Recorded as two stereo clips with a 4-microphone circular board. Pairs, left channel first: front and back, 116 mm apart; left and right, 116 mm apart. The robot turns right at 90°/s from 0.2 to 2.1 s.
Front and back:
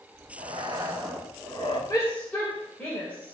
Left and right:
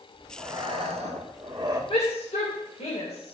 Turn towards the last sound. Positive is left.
turn(degrees=75)